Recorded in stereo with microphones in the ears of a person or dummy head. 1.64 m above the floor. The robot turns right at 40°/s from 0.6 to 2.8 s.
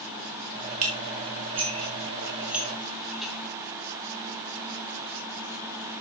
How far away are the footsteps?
I don't hear footsteps.